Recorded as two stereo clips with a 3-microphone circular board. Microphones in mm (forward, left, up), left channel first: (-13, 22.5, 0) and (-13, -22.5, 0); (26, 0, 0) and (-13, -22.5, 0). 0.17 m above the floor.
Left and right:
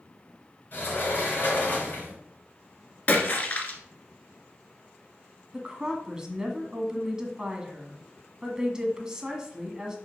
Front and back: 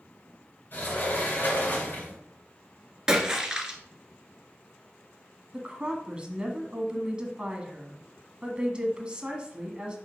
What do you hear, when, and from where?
0.7 s a sliding door: 60° left, 2.5 m
3.1 s a splash: 135° left, 1.4 m
5.5 s a woman speaking: 135° right, 1.2 m